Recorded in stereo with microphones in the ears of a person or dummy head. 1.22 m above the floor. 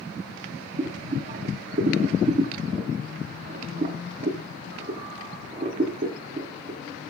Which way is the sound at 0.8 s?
40° right (ahead or behind).